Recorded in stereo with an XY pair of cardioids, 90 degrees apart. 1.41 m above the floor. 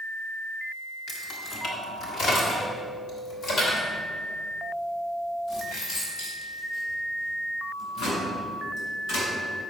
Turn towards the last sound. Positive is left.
turn(degrees=75)